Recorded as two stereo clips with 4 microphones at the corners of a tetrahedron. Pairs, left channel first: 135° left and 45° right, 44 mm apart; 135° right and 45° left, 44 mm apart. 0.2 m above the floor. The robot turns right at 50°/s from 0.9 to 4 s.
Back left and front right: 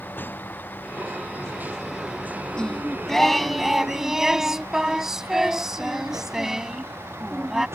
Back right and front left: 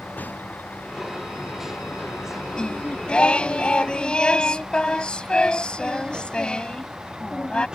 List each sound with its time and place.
0.0 s a vehicle: straight behind; by 7.8 s 25° right
2.5 s singing: straight behind; by 7.7 s 110° right